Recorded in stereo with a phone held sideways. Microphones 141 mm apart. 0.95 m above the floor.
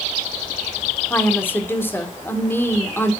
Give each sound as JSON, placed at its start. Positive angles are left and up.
{"t": 1.1, "sound": "a woman speaking", "side_deg": 15, "distance_m": 2.5}